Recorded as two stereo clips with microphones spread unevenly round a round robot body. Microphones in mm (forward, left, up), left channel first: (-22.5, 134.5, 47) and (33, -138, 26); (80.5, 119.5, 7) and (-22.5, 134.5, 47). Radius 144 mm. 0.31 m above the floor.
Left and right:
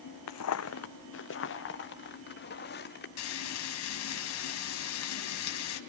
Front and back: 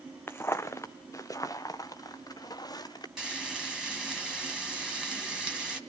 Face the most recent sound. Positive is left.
turn(degrees=80)